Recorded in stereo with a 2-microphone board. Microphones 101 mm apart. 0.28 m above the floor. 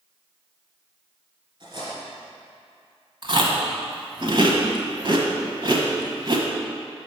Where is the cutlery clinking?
50° right (ahead or behind), 2.5 m.